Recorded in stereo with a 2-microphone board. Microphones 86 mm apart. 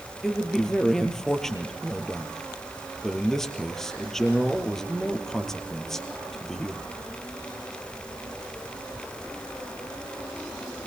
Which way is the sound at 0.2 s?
5° left (ahead or behind).